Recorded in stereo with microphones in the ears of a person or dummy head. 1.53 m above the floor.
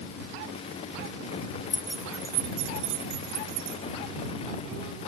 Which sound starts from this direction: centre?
Keys jangling, at 1.7 s.